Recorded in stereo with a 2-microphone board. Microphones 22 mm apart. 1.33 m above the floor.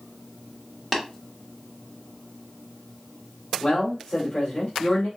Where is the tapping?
Centre (ahead or behind), 1.5 m.